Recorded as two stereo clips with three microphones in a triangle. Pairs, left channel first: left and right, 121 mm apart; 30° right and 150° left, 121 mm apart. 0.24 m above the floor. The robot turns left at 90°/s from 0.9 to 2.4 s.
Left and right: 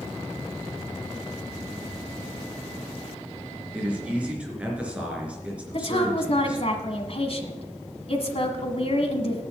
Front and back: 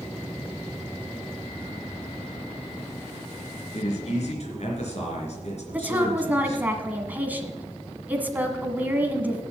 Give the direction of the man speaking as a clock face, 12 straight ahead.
12 o'clock.